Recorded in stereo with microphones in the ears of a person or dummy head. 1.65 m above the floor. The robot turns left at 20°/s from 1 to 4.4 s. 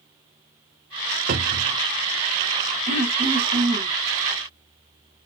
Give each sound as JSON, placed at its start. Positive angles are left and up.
{"t": 1.3, "sound": "a cupboard door", "side_deg": -50, "distance_m": 0.9}
{"t": 2.9, "sound": "throat clearing", "side_deg": -40, "distance_m": 2.5}